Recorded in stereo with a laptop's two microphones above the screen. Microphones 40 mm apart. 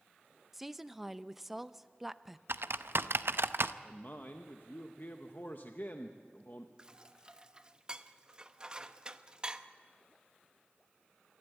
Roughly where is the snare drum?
No snare drum in this recording.